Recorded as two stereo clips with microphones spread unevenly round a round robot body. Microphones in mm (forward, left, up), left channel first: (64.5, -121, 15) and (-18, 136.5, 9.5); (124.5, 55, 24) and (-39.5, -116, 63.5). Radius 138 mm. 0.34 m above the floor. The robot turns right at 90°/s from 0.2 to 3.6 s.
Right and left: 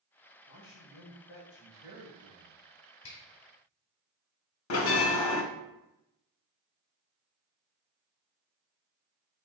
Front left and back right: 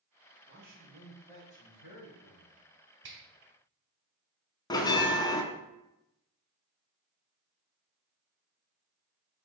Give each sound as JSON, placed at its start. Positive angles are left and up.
{"t": 0.5, "sound": "a man speaking", "azimuth_deg": -100, "distance_m": 1.8}
{"t": 3.0, "sound": "a finger snap", "azimuth_deg": -100, "distance_m": 1.6}
{"t": 4.7, "sound": "a bell", "azimuth_deg": -30, "distance_m": 0.6}